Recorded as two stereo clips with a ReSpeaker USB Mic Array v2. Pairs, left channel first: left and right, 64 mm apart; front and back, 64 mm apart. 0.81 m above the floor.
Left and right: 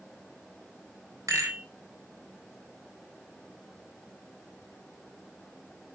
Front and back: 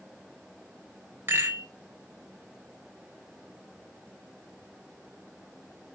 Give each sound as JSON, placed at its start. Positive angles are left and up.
{"t": 1.3, "sound": "a rattle", "azimuth_deg": -125, "distance_m": 4.0}